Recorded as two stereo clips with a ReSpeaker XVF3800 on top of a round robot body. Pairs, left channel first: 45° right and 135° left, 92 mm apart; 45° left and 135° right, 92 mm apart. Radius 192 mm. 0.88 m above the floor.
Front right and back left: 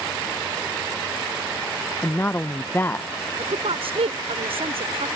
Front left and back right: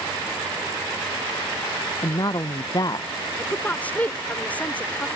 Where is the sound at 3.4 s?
120° left.